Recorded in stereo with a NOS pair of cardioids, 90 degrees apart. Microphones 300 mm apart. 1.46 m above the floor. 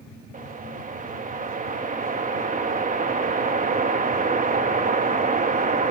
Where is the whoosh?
25° right, 1.7 m.